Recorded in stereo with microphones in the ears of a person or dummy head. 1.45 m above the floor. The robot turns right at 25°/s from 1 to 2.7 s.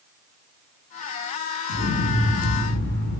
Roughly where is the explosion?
Left.